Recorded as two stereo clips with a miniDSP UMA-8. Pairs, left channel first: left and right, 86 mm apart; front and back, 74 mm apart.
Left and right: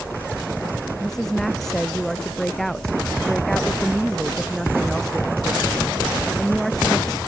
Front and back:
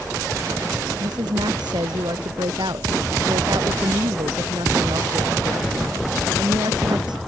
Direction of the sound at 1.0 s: 175° left.